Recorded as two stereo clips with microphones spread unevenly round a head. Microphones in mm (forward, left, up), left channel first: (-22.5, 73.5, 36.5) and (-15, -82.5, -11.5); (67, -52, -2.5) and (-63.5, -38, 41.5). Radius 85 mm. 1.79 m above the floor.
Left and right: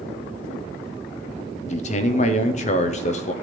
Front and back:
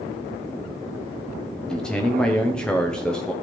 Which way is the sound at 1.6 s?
90° left.